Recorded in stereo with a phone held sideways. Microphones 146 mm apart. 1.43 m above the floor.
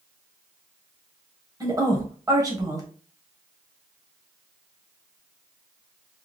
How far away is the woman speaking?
About 1.2 m.